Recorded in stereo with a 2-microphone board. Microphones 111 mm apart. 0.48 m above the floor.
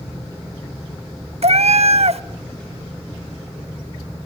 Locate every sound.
1.4 s a cat meowing: 70° right (ahead or behind), 0.6 m